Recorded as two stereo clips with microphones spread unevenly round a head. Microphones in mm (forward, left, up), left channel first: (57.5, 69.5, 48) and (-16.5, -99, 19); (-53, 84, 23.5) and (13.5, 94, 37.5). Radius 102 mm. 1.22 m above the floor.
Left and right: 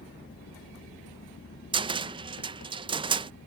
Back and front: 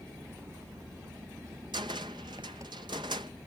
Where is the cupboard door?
45° right.